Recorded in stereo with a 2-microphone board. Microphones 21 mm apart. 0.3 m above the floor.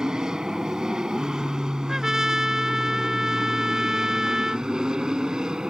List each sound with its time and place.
0.0 s an aircraft: 35° right (ahead or behind); by 5.7 s 40° right (ahead or behind)
1.9 s a trumpet: 25° right (ahead or behind)